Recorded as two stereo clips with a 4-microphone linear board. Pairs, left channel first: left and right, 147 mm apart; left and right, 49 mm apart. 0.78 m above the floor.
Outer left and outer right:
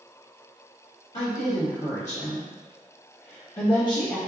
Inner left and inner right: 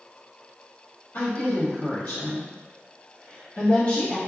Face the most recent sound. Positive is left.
turn(degrees=20)  # may be behind; listen again after turning